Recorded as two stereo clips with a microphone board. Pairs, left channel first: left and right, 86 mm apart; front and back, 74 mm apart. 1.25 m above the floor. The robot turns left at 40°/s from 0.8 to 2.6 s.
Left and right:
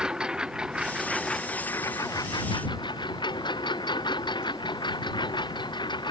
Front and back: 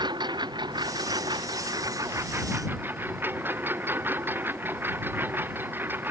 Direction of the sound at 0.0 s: 170° right.